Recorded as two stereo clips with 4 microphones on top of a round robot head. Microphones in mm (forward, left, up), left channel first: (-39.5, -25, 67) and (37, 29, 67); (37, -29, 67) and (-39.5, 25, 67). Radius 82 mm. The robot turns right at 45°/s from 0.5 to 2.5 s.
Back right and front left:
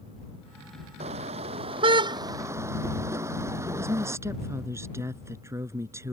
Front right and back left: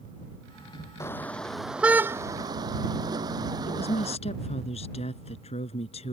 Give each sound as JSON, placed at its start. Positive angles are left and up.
{"t": 1.0, "sound": "a car horn", "azimuth_deg": 30}
{"t": 3.7, "sound": "a woman speaking", "azimuth_deg": -30}